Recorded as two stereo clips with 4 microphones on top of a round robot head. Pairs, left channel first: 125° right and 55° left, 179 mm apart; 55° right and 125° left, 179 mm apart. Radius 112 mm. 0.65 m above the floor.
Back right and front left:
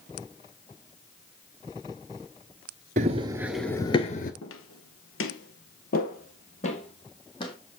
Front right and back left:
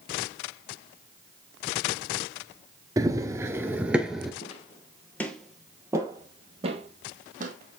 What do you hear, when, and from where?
3.0 s running footsteps: 65° left, 0.6 m; by 4.3 s 150° right, 0.7 m
4.4 s footsteps: 110° right, 1.1 m; by 7.5 s 170° left, 1.7 m